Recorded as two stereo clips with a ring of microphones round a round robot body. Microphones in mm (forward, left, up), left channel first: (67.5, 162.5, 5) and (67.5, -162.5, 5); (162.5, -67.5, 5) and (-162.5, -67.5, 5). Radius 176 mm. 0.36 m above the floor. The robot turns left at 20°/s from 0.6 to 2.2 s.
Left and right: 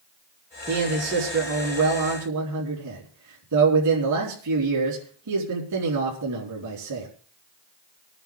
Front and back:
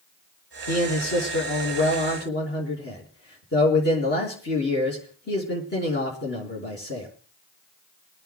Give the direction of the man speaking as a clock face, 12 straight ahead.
1 o'clock.